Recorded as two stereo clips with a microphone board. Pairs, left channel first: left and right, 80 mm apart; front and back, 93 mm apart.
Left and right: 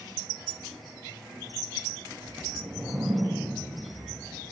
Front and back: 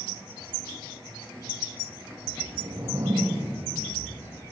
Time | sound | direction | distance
2.2 | a whoosh | 170° right | 3.5 m